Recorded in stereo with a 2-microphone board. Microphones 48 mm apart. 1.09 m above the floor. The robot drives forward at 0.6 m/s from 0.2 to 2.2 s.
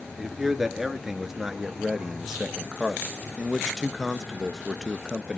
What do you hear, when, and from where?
0.2 s a man speaking: 5° right (ahead or behind), 2.5 m; by 5.4 s 10° right (ahead or behind), 1.2 m